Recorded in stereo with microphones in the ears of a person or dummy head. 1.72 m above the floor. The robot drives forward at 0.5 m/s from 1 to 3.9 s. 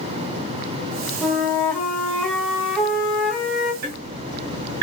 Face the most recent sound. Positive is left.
turn(degrees=-60)  # may be behind; listen again after turning